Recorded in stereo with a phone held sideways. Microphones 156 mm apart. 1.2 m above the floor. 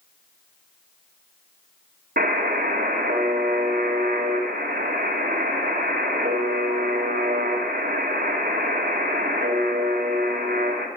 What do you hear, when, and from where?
2.2 s a buzzer: 70° right (ahead or behind), 2 m